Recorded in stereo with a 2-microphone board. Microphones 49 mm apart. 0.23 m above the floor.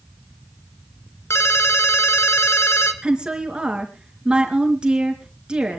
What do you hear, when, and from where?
1.3 s a ringtone: 70° left (ahead or behind), 2 m
3.0 s a woman speaking: 20° right (ahead or behind), 3.5 m